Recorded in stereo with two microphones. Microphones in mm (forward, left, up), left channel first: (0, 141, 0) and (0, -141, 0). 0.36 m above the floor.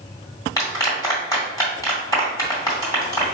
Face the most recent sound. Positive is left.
turn(degrees=10)  # may be behind; listen again after turning